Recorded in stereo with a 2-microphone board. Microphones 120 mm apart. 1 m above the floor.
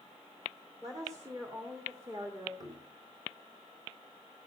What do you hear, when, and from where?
0.8 s a woman speaking: 30° right (ahead or behind), 3.5 m; by 2.5 s 25° right (ahead or behind), 2 m
2.6 s knocking: 30° right (ahead or behind), 5 m